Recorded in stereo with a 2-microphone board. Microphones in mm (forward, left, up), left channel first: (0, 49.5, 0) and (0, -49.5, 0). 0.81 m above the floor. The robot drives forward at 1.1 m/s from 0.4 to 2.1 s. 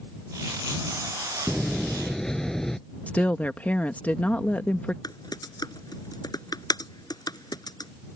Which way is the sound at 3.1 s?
15° left (ahead or behind).